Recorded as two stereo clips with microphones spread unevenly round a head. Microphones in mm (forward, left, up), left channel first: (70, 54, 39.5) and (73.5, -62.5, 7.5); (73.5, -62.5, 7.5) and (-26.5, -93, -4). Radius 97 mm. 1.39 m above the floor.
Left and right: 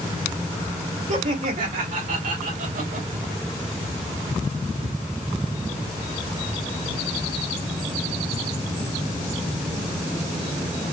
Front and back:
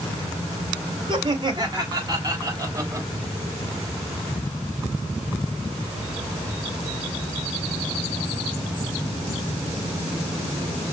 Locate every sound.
1.1 s laughter: 115° right, 3.5 m; by 3.1 s 100° right, 2.5 m